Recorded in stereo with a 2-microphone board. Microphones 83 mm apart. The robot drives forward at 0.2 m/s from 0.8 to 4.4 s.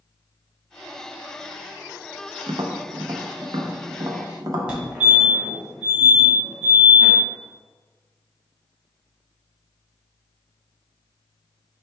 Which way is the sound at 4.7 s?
15° right (ahead or behind).